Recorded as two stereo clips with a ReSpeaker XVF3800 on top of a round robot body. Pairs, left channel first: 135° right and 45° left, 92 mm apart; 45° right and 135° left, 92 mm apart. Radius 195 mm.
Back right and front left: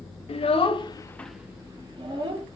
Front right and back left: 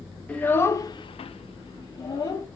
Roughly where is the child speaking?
Behind right.